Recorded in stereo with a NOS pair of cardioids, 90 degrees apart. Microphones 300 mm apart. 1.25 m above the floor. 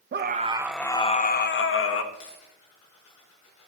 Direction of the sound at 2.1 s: 70° left.